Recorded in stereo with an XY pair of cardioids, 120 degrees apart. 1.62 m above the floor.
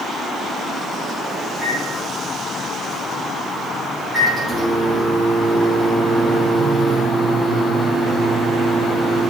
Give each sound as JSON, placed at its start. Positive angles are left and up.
{"t": 1.5, "sound": "a microwave", "azimuth_deg": -10, "distance_m": 4.5}